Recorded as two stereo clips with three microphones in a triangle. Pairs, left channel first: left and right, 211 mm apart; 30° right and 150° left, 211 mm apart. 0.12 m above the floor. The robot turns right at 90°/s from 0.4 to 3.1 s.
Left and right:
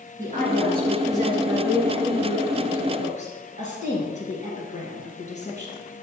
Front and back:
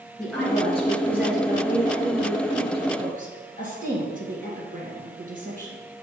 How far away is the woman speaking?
About 2.5 m.